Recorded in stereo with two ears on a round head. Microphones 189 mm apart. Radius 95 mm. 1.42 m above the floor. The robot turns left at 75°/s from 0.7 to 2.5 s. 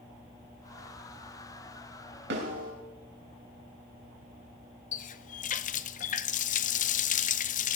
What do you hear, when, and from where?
2.3 s a snare drum: 60° right (ahead or behind), 4 m; by 2.7 s 45° right (ahead or behind), 4 m
4.9 s a running tap: 40° left (ahead or behind), 0.6 m